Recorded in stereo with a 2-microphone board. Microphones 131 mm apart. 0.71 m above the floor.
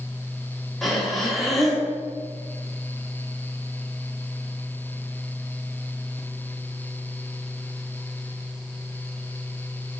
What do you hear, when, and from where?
0.8 s breathing: centre (ahead or behind), 1.6 m